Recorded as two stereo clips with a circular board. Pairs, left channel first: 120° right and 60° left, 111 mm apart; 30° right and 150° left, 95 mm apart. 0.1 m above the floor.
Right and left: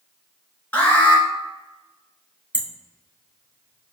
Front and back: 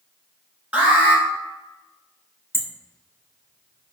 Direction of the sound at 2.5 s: 125° left.